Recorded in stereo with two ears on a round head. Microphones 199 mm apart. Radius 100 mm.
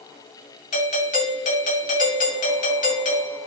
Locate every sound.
0.7 s a doorbell: 35° left (ahead or behind), 1.9 m